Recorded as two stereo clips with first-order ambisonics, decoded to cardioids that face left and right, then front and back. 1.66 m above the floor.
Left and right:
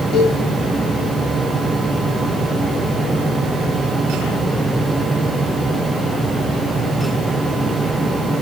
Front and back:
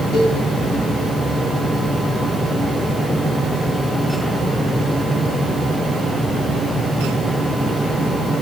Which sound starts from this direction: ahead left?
A cowbell, at 0.1 s.